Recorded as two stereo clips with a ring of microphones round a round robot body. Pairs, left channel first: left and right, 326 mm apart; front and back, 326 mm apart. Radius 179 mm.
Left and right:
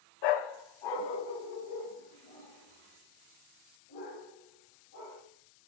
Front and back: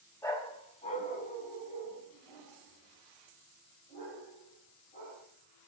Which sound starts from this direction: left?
A dog barking, at 0.2 s.